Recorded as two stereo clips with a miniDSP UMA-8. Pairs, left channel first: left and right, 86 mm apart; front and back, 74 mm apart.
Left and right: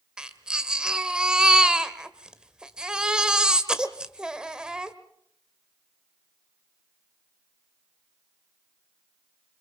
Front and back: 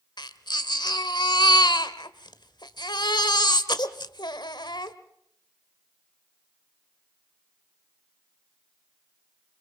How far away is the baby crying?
About 1.5 m.